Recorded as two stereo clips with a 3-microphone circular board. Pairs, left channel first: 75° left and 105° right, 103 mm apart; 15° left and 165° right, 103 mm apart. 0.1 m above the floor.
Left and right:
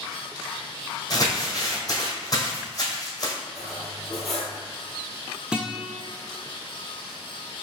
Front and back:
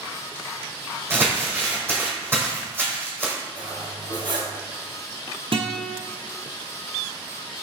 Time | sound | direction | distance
1.1 | crumpling | 130° left | 2.0 m
3.5 | cutlery clinking | 165° left | 1.4 m
5.5 | a guitar | 175° left | 0.8 m